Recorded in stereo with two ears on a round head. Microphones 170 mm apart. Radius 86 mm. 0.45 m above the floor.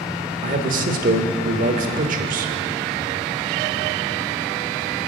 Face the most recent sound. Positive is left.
turn(degrees=-45)  # may be behind; listen again after turning